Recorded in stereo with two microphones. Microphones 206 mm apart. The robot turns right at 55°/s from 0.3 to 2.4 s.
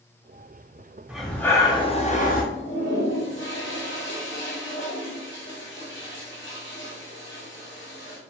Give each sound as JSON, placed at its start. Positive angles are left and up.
{"t": 1.1, "sound": "breathing", "azimuth_deg": -5, "distance_m": 0.5}
{"t": 2.5, "sound": "a toilet flushing", "side_deg": 60, "distance_m": 1.0}